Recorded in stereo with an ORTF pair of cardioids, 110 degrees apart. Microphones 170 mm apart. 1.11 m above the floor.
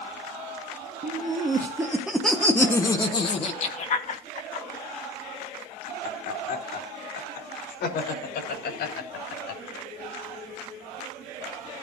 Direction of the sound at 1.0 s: 35° right.